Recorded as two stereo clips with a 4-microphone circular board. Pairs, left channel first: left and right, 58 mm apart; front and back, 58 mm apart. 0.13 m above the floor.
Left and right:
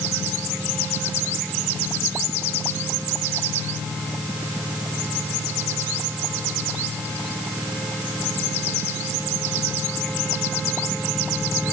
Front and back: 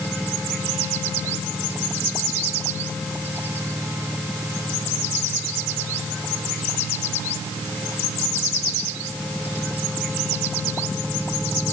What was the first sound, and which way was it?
Only background noise.